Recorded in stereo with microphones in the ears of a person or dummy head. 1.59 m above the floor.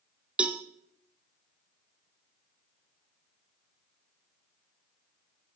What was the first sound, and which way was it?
A cowbell, 5° right (ahead or behind).